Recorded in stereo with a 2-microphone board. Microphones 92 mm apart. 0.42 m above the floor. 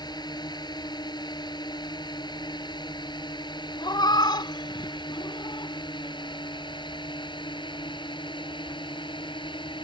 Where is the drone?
50° left (ahead or behind); by 9.8 s 60° left (ahead or behind).